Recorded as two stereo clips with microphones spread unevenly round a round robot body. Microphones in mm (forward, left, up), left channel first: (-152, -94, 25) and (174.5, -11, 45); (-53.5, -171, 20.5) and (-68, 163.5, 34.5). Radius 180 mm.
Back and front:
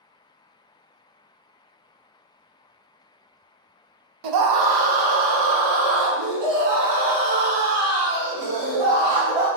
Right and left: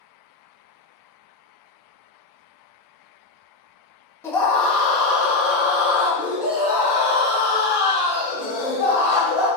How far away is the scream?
About 0.8 m.